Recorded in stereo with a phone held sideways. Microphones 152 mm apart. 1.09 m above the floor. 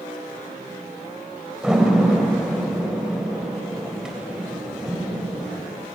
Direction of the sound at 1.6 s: 5° right (ahead or behind).